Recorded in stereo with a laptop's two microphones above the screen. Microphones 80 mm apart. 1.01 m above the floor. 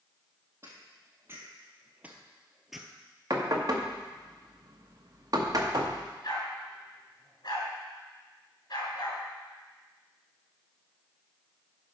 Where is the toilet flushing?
No toilet flushing in this recording.